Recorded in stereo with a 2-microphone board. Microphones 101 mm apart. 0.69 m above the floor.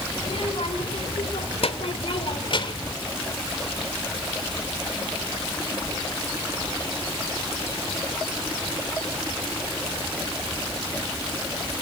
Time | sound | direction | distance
0.2 | a child speaking | 65° left (ahead or behind) | 3 m